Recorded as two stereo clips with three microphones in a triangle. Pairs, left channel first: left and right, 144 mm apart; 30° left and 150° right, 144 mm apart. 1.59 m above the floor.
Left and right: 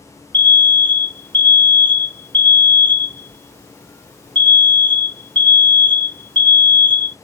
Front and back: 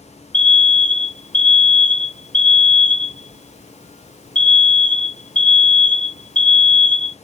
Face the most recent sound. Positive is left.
turn(degrees=10)